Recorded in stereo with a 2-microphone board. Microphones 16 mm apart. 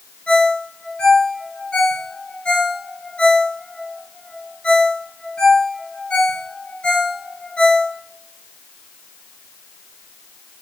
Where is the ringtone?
75° left (ahead or behind), 3 m.